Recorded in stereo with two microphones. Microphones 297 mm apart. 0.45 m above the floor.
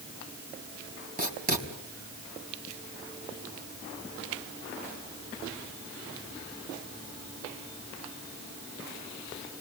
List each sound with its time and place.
1.2 s writing: 30° right (ahead or behind), 4 m